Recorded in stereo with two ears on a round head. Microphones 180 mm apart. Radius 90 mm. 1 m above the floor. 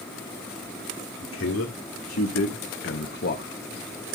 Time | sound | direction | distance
1.2 | a man speaking | 75° left (ahead or behind) | 2.5 m